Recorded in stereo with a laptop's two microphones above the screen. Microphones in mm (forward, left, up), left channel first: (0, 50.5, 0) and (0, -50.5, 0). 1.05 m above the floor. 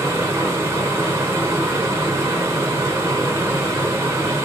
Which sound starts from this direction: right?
A fan, at 0.0 s.